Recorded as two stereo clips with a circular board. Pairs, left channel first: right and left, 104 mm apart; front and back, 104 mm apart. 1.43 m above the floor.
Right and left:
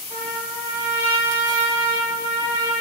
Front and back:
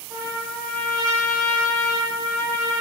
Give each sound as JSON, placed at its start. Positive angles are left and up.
{"t": 0.1, "sound": "a trumpet", "azimuth_deg": -85, "distance_m": 1.7}